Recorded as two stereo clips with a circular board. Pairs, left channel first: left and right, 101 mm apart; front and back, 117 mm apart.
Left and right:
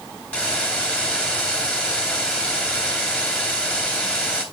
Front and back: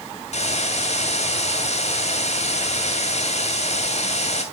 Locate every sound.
0.3 s a hiss: 10° left, 1.8 m